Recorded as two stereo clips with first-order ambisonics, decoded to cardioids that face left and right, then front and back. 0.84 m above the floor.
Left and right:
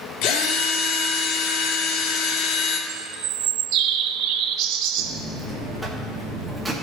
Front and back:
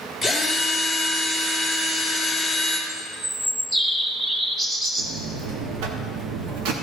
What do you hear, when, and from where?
0.2 s a drill: 100° left, 2 m
2.9 s a bird: 105° right, 0.9 m
5.0 s a buzzer: 175° right, 1.4 m